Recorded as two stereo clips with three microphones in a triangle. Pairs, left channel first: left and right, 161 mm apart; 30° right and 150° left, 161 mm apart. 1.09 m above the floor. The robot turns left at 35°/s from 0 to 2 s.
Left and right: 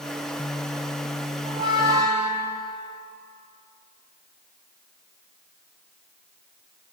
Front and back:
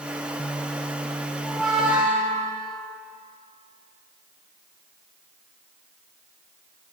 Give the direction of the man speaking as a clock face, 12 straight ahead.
I don't hear a man speaking.